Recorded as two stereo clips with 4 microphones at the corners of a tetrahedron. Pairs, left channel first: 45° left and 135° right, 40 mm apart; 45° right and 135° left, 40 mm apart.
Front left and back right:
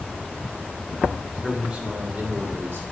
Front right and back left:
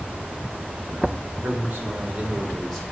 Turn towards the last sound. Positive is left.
turn(degrees=-130)